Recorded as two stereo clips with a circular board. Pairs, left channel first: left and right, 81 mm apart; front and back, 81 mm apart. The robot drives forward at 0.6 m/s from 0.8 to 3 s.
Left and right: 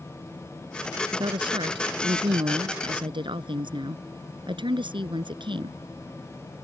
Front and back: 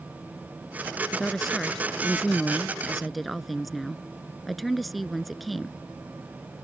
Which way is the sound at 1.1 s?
85° right.